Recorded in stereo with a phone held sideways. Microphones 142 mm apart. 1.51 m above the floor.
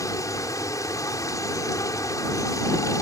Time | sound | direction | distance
0.0 | running water | 25° left (ahead or behind) | ?